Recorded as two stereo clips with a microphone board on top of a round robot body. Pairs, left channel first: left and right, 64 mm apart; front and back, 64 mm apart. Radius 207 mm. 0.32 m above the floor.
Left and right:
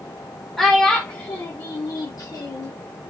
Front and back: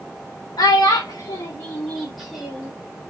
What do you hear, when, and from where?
0.6 s a child speaking: 5° left, 1.3 m; by 2.7 s 105° left, 1.5 m